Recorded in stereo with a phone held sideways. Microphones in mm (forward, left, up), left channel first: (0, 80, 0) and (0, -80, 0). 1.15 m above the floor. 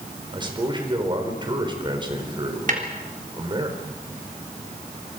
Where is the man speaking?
30° right (ahead or behind), 4.5 m.